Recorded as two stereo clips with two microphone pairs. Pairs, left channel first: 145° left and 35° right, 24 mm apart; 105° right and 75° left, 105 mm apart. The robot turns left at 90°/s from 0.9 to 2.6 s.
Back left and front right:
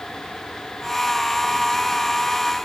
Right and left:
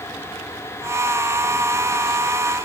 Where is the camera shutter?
No camera shutter in this recording.